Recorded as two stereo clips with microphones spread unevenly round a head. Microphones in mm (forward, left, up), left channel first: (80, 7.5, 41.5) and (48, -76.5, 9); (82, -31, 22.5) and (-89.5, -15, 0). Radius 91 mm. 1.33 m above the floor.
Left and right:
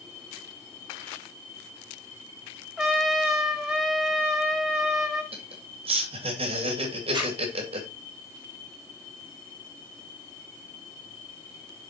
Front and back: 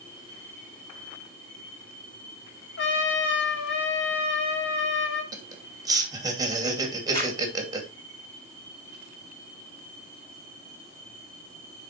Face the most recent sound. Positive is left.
turn(degrees=-75)